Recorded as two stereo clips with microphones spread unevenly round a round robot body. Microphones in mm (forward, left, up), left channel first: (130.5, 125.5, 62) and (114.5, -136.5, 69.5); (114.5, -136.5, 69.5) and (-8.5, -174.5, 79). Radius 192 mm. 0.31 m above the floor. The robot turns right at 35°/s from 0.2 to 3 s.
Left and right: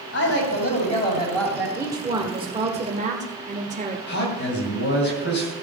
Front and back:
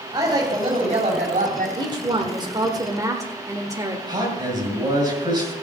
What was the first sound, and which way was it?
A woman speaking, 125° left.